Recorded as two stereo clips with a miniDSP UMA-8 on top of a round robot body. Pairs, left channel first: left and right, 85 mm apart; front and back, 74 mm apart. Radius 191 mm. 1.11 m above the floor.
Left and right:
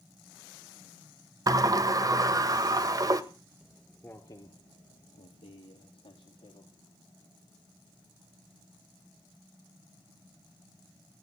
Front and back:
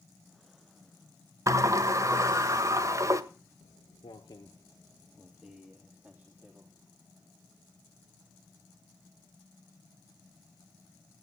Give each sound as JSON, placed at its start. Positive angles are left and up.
{"t": 1.5, "sound": "a sliding door", "azimuth_deg": -135, "distance_m": 2.0}
{"t": 3.6, "sound": "footsteps", "azimuth_deg": -10, "distance_m": 1.7}